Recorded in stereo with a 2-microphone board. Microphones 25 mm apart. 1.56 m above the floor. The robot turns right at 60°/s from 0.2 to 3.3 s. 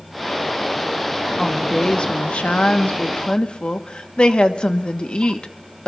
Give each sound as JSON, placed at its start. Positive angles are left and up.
{"t": 1.4, "sound": "a woman speaking", "azimuth_deg": 10, "distance_m": 1.2}